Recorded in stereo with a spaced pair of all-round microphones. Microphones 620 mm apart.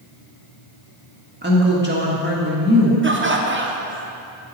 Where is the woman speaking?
15° right (ahead or behind), 1.7 m.